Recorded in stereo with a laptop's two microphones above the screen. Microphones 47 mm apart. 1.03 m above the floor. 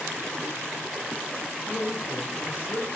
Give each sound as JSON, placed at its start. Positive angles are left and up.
{"t": 1.7, "sound": "a man speaking", "side_deg": 55, "distance_m": 1.9}